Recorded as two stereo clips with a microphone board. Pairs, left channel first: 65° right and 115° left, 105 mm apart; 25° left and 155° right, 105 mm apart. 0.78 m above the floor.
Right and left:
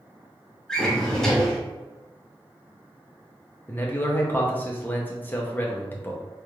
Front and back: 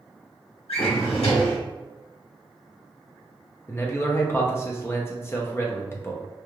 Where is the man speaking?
15° right, 0.6 m.